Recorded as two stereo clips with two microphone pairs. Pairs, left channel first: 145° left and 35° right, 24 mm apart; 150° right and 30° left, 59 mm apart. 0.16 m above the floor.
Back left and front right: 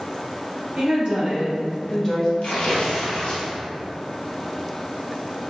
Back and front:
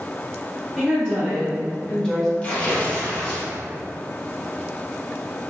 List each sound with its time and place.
0.8 s a woman speaking: 70° right, 1.7 m; by 2.3 s 140° left, 1.2 m
2.4 s tearing paper: 150° left, 1.2 m